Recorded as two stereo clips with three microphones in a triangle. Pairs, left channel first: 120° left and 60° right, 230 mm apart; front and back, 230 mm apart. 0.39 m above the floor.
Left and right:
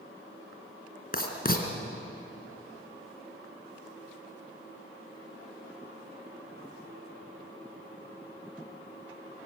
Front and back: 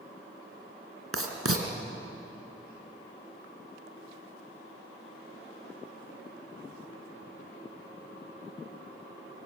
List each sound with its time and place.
1.1 s writing: 170° left, 3 m